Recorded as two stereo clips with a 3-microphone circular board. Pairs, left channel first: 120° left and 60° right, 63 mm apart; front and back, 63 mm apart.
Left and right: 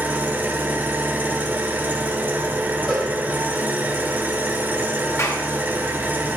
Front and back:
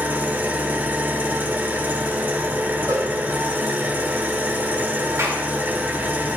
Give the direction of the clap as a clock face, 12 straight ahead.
7 o'clock.